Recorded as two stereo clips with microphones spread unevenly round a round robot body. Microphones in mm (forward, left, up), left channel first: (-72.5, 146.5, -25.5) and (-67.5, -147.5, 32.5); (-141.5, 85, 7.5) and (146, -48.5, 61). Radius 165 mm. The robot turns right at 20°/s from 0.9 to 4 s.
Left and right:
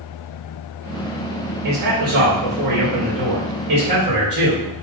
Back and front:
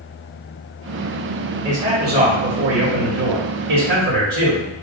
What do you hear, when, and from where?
1.6 s a man speaking: 85° right, 2.5 m; by 4.7 s 35° right, 2.5 m